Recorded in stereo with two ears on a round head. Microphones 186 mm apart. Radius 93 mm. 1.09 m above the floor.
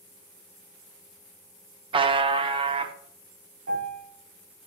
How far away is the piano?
About 3.5 m.